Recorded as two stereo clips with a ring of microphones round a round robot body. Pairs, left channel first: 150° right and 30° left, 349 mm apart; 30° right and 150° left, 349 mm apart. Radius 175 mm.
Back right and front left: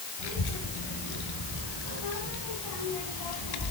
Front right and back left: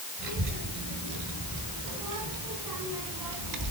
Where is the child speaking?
170° right, 6 m; by 3.7 s 175° right, 2.5 m.